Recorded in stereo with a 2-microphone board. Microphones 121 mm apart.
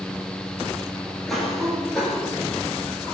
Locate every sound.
1.3 s a cough: centre (ahead or behind), 4.5 m